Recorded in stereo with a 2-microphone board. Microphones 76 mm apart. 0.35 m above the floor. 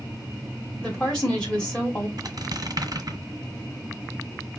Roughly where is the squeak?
Right.